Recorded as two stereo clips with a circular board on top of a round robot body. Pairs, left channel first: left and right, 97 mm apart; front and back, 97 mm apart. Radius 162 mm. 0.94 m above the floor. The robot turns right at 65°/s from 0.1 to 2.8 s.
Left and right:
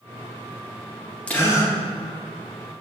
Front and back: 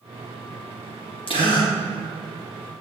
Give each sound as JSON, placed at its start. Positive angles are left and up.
{"t": 1.3, "sound": "a gasp", "azimuth_deg": 15, "distance_m": 2.5}